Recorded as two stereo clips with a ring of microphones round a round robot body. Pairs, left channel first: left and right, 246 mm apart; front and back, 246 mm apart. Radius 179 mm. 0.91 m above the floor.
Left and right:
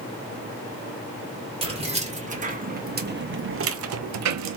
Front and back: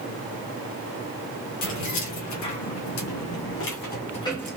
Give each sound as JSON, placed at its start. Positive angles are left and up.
{"t": 1.6, "sound": "keys jangling", "azimuth_deg": -20, "distance_m": 1.6}